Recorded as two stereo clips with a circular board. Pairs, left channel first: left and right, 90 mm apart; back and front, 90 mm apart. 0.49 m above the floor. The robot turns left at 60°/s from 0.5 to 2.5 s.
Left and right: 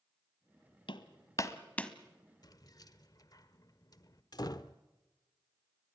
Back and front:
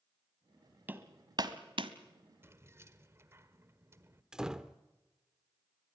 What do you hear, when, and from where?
0.9 s hammering: 70° left, 1.2 m; by 1.9 s 10° left, 1.2 m
2.4 s keys jangling: 60° left, 1.2 m; by 4.2 s 55° left, 1.2 m
4.3 s a door slam: 80° left, 0.8 m